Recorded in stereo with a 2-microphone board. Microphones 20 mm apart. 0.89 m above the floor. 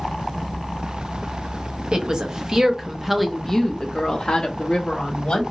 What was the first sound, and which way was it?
A woman speaking, 50° right (ahead or behind).